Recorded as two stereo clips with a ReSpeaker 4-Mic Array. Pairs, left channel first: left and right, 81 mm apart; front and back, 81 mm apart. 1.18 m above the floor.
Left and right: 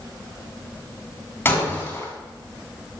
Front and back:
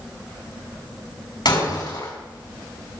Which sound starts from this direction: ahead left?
Breaking glass, at 1.4 s.